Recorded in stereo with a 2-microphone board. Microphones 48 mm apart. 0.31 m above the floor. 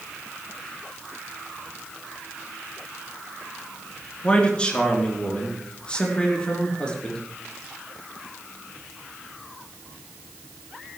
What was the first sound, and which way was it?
A man speaking, 20° left (ahead or behind).